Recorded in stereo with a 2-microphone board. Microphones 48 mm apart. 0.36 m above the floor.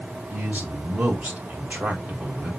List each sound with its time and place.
0.3 s a man speaking: 35° right (ahead or behind), 1.7 m